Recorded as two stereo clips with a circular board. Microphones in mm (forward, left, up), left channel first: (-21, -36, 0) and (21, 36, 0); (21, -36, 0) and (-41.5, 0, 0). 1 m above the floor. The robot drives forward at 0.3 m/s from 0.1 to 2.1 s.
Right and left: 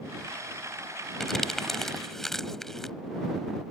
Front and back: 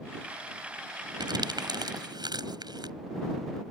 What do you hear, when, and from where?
1.2 s crumpling: 155° left